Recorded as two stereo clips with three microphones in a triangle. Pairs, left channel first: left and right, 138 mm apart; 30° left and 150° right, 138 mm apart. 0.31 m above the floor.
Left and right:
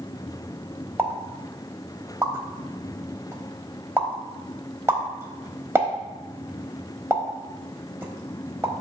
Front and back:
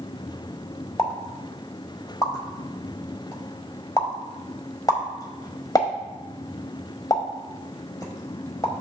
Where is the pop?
25° right, 1.0 m.